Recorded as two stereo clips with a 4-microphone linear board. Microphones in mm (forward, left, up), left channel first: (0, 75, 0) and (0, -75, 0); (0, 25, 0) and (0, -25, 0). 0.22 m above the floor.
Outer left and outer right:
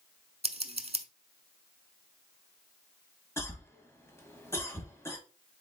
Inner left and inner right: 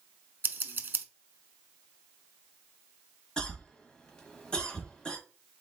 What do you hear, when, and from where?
0.4 s scissors: 45° right (ahead or behind), 0.6 m
3.4 s a cough: 20° left (ahead or behind), 1.3 m